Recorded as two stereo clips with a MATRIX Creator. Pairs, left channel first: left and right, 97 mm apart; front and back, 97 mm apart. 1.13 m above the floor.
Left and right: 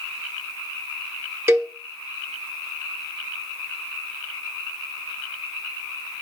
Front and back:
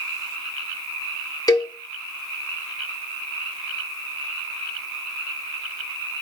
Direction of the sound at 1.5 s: 35° right.